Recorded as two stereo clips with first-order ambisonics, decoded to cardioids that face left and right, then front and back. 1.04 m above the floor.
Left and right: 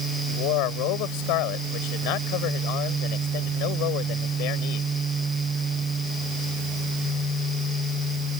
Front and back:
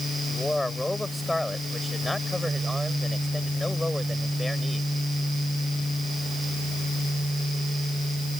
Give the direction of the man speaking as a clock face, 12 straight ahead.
9 o'clock.